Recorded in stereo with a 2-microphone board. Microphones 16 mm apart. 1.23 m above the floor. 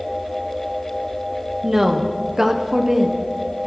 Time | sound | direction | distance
1.6 | a woman speaking | 25° right (ahead or behind) | 0.7 m